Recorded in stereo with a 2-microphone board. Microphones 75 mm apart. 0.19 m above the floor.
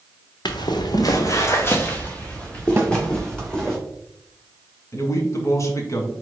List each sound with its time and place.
0.5 s footsteps: 85° left, 1.1 m; by 3.8 s 5° left (ahead or behind), 3.5 m
2.8 s a snare drum: 25° right (ahead or behind), 1.4 m
4.9 s a man speaking: 45° left (ahead or behind), 1.6 m